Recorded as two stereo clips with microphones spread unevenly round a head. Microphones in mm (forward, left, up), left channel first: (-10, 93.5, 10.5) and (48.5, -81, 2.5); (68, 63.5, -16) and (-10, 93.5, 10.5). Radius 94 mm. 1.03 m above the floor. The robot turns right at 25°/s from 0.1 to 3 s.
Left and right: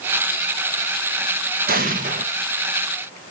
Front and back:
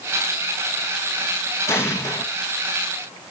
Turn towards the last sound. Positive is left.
turn(degrees=-25)